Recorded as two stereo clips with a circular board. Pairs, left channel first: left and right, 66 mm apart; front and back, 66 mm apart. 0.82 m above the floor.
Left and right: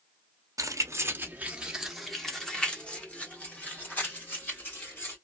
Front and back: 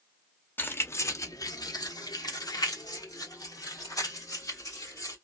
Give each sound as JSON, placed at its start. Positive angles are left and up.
{"t": 0.6, "sound": "keys jangling", "azimuth_deg": -60, "distance_m": 0.7}